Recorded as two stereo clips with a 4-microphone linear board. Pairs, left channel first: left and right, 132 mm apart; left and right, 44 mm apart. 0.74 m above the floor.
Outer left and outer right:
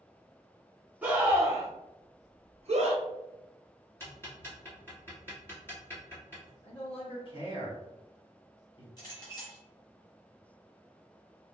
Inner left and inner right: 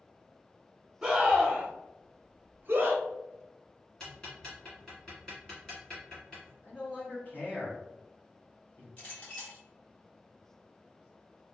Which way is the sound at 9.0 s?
30° left (ahead or behind).